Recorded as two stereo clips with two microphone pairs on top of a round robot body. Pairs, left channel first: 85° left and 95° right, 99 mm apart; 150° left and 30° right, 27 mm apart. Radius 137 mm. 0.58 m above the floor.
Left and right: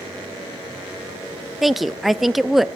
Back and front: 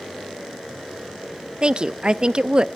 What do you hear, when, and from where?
1.6 s a woman speaking: 5° left, 0.7 m